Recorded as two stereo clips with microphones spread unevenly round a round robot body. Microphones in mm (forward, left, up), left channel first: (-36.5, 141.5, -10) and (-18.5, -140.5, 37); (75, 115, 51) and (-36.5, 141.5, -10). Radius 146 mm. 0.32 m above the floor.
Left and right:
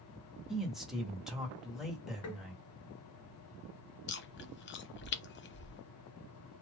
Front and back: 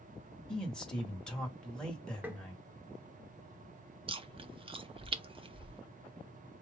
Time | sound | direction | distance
0.5 | a man speaking | 165° left | 1.2 m
2.2 | tapping | 110° left | 1.1 m
4.1 | chewing | 140° left | 0.7 m